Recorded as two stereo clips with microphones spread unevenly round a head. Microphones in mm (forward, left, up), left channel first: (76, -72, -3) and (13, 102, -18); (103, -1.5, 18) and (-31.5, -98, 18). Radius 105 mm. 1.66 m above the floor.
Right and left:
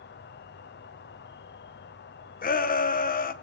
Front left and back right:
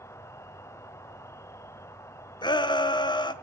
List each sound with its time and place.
0.0 s an insect: 40° right, 1.0 m
2.4 s a shout: 30° right, 1.5 m